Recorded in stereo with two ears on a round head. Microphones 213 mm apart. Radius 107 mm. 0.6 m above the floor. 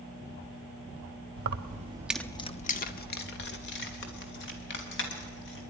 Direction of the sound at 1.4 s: 45° right (ahead or behind).